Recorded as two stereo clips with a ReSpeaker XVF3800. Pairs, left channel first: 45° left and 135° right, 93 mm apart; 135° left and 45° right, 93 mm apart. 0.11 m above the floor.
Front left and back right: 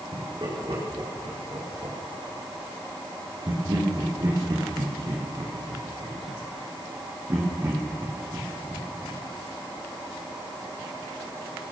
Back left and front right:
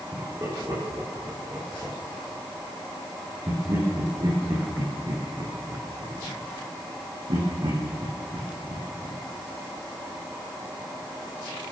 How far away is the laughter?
About 8.5 m.